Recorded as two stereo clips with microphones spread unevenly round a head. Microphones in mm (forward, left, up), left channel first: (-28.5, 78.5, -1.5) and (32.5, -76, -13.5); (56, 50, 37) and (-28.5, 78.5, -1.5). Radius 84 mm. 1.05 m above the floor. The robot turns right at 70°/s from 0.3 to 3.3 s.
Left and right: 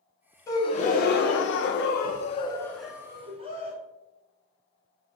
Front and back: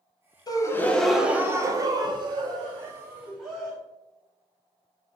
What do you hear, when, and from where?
0.5 s a gasp: 40° left, 0.7 m; by 3.8 s 125° right, 0.7 m